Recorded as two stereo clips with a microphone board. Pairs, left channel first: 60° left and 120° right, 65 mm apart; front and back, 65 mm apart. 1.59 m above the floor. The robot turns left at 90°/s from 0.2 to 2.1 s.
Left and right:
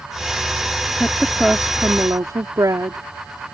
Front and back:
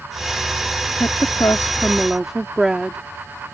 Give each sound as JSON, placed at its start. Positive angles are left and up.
{"t": 1.0, "sound": "a woman speaking", "azimuth_deg": 5}